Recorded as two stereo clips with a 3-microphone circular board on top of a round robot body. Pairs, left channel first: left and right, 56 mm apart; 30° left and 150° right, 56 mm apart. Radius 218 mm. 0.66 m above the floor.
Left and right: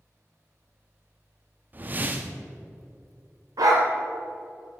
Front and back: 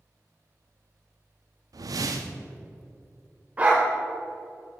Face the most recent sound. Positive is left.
turn(degrees=-85)